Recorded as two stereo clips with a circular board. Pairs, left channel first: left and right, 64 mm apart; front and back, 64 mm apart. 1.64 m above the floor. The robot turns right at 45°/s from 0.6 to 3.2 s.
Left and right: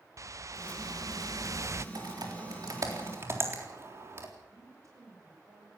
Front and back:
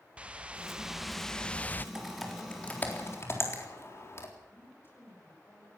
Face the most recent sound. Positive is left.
turn(degrees=-55)